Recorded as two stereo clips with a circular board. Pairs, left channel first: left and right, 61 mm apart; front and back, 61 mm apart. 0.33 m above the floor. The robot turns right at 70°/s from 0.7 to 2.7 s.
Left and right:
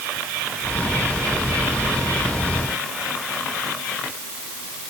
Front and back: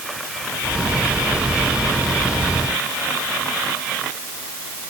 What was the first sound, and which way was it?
Only background noise.